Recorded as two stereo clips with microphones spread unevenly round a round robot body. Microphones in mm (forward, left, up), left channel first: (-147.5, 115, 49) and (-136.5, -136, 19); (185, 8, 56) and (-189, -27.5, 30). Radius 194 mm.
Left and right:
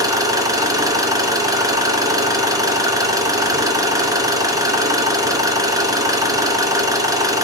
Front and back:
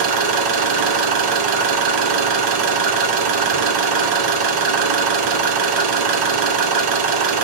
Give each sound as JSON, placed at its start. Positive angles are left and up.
{"t": 0.0, "sound": "an engine running", "azimuth_deg": -165, "distance_m": 3.0}